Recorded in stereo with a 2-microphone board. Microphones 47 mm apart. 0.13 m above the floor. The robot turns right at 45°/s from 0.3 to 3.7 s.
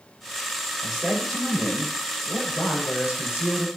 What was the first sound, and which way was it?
A man speaking, 15° right.